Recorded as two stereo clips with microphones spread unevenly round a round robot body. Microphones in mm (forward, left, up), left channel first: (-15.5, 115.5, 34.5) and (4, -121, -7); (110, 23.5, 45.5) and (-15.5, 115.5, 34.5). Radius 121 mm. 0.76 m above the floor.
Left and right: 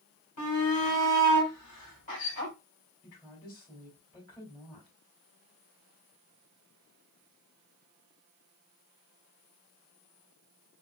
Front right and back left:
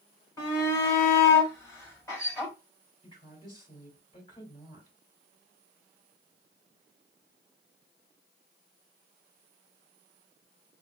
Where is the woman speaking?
20° left, 3 m.